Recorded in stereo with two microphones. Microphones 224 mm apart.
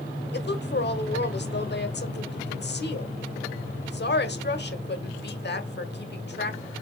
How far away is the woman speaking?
About 1.2 m.